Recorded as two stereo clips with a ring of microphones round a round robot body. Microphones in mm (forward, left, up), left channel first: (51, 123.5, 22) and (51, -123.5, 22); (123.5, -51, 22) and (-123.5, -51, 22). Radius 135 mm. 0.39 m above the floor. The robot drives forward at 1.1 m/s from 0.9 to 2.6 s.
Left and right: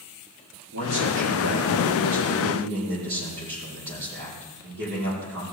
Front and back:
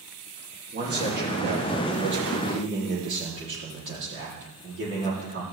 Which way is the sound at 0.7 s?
135° right.